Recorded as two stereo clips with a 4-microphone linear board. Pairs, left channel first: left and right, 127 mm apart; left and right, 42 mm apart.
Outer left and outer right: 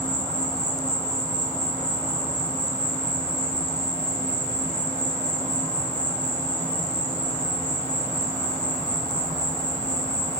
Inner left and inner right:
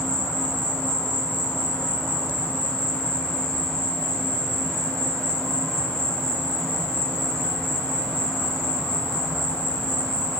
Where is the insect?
70° right (ahead or behind), 1.1 m.